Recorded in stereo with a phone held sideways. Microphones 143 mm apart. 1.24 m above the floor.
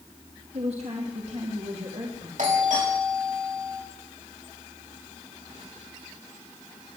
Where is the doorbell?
65° right (ahead or behind), 4.5 m.